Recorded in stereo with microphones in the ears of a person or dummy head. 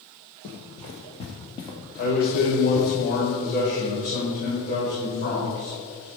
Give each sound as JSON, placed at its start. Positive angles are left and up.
{"t": 0.4, "sound": "running footsteps", "side_deg": 40, "distance_m": 1.7}
{"t": 2.0, "sound": "a man speaking", "side_deg": 50, "distance_m": 4.0}